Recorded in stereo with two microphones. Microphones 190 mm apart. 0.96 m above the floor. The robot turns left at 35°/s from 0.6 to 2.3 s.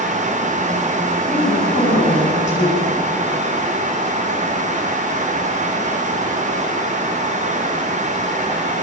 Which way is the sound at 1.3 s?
135° left.